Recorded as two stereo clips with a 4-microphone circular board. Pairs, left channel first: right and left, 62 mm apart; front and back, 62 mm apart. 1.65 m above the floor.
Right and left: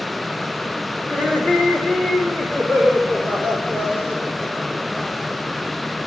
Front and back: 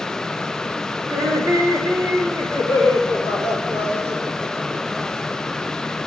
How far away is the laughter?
About 2.5 m.